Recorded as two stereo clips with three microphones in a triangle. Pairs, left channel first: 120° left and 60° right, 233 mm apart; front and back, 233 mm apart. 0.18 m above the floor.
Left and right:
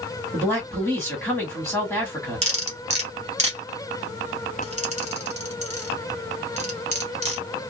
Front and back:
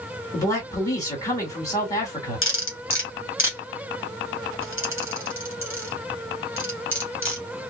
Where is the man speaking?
55° left, 1.6 m.